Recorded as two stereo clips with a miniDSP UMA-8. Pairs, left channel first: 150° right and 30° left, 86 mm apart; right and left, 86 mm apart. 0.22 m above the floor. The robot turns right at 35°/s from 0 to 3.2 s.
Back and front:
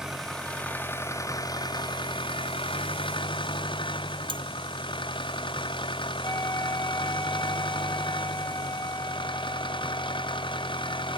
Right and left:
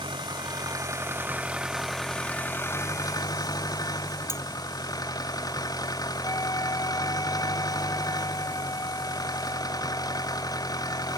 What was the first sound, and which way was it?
An engine running, 115° left.